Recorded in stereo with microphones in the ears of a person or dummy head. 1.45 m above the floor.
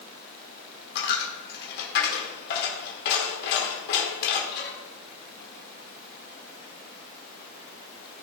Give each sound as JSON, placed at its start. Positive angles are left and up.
{"t": 0.9, "sound": "a dropped coin", "side_deg": 65, "distance_m": 2.5}